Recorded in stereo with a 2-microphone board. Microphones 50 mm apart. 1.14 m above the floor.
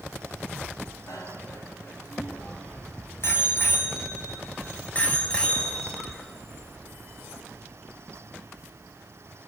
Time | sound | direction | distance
1.1 | a bicycle bell | 85° left | 6.5 m